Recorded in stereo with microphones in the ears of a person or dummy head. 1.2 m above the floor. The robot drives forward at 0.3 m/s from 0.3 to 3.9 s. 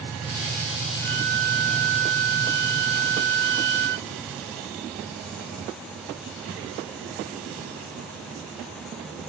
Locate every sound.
1.0 s a violin: 60° right (ahead or behind); by 4.1 s 65° right (ahead or behind)